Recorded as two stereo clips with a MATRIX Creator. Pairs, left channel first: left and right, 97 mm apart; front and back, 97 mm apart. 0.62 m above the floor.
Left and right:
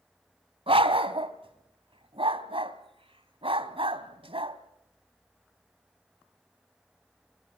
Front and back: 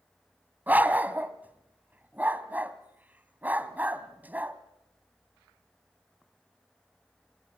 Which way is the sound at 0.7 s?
110° right.